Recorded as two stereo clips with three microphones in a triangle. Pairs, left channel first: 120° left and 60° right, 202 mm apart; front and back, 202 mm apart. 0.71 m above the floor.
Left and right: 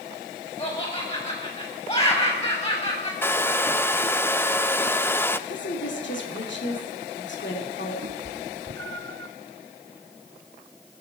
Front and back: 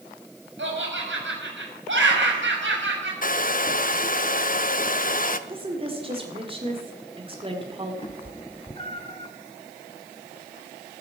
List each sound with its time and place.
0.6 s laughter: straight behind, 5.5 m
3.2 s a hair dryer: 40° left, 0.5 m
5.5 s a woman speaking: 120° left, 2 m
8.0 s a cat meowing: 65° right, 0.8 m